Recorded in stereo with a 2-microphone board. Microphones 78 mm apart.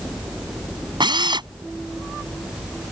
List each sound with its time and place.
1.0 s a drill: 80° right